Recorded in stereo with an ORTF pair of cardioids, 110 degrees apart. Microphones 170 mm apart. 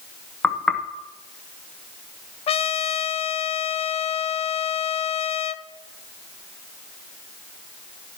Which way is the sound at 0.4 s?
5° left.